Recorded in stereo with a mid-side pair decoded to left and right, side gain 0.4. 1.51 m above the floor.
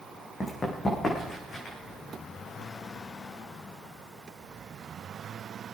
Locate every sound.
0.4 s running footsteps: 30° left, 5.5 m; by 1.8 s 50° left, 6.5 m